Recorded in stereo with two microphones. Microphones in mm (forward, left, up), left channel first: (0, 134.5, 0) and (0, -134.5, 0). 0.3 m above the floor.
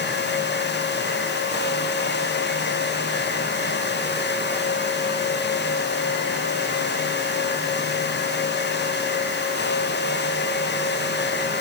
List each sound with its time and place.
Only background noise.